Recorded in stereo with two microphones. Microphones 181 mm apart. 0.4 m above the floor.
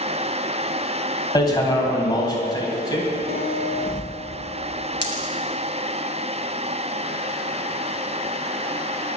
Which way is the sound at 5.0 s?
75° right (ahead or behind).